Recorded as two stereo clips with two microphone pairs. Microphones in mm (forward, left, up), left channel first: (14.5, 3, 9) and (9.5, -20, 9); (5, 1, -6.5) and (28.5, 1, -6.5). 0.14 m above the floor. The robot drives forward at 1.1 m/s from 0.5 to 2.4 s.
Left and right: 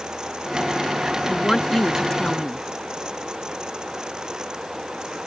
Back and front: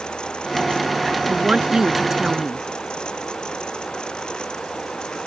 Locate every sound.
1.3 s a woman speaking: 20° left; by 2.6 s 60° left